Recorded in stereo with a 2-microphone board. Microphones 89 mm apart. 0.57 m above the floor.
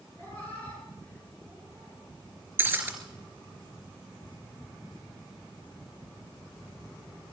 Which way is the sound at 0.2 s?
20° left (ahead or behind).